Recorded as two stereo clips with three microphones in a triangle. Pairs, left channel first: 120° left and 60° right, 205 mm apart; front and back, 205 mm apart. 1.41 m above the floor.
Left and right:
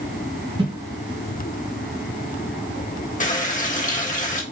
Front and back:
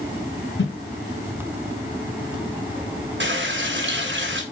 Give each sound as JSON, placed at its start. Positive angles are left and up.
{"t": 0.6, "sound": "a whoosh", "azimuth_deg": 5, "distance_m": 1.3}
{"t": 3.2, "sound": "a running tap", "azimuth_deg": 165, "distance_m": 1.2}